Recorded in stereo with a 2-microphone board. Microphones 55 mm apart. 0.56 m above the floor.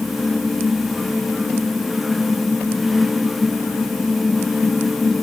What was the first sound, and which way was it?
Only background noise.